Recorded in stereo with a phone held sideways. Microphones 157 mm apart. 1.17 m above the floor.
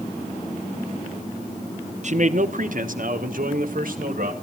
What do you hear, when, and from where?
2.0 s a man speaking: 50° right (ahead or behind), 0.7 m; by 4.3 s 65° right (ahead or behind), 2 m